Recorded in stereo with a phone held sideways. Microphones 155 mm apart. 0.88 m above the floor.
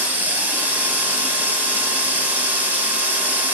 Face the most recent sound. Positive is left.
turn(degrees=-10)  # may be behind; listen again after turning